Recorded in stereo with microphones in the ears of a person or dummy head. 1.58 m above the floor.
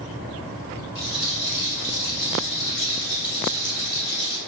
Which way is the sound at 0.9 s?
65° left (ahead or behind).